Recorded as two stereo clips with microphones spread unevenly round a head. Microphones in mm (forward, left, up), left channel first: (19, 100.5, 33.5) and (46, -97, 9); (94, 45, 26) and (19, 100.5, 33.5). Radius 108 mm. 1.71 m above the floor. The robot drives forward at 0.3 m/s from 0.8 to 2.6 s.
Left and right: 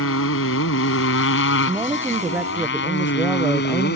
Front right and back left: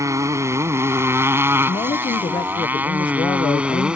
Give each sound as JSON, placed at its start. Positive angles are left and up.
{"t": 0.0, "sound": "a motorcycle", "azimuth_deg": 90}
{"t": 1.7, "sound": "a woman speaking", "azimuth_deg": 0}